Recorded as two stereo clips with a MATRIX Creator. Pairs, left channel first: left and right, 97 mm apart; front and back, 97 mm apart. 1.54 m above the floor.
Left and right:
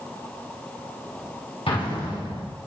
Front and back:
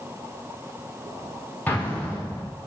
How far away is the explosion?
About 4 m.